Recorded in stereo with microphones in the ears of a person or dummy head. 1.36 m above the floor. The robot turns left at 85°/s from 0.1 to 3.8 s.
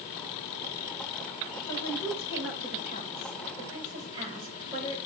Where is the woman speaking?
160° left, 5 m; by 5.0 s 20° right, 5 m.